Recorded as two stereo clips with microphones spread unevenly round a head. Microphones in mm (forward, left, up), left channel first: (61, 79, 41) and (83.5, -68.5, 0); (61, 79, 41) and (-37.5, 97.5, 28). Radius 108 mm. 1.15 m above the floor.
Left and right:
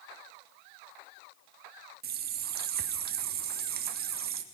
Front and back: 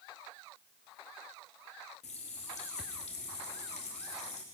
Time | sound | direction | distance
2.0 | a running tap | 60° right | 1.0 m